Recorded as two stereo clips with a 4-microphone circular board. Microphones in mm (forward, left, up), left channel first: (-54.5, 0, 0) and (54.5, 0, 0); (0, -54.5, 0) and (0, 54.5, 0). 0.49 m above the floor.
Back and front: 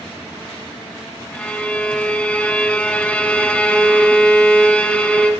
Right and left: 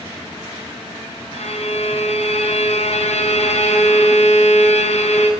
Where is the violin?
100° right, 1.5 m.